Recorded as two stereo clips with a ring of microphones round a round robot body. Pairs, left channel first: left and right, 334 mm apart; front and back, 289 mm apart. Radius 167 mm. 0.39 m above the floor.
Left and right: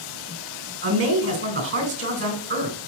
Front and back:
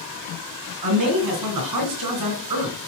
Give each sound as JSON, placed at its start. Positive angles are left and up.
{"t": 0.8, "sound": "a man speaking", "azimuth_deg": -145, "distance_m": 3.0}